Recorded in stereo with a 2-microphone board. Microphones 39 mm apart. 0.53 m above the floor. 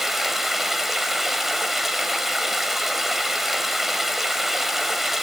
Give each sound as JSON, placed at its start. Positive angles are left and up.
{"t": 0.0, "sound": "running water", "side_deg": -5, "distance_m": 1.1}